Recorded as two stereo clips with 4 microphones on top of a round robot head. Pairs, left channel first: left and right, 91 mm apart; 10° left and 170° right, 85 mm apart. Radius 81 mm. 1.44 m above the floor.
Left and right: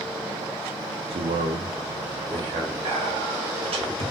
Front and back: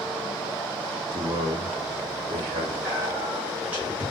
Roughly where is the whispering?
Right.